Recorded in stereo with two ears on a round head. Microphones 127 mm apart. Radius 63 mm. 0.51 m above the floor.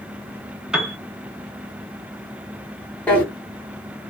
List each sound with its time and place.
0.7 s a piano: 5° right (ahead or behind), 0.7 m
3.1 s a drawer: 10° left (ahead or behind), 1.0 m